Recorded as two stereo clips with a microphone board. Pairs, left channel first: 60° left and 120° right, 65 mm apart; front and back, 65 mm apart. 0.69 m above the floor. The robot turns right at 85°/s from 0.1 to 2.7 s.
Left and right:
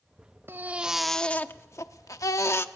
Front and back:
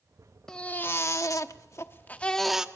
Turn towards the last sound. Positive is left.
turn(degrees=110)